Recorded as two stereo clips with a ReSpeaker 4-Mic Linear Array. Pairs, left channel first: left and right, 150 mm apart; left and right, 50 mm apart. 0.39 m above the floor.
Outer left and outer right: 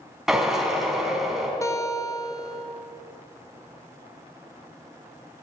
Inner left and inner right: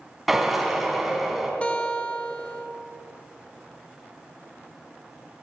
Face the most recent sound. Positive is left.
turn(degrees=20)  # may be behind; listen again after turning